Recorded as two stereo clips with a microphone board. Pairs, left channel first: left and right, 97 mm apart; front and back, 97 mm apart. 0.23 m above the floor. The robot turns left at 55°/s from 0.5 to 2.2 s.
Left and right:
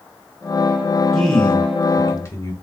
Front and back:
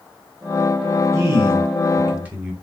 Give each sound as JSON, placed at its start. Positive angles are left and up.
{"t": 1.1, "sound": "a man speaking", "azimuth_deg": 180, "distance_m": 1.2}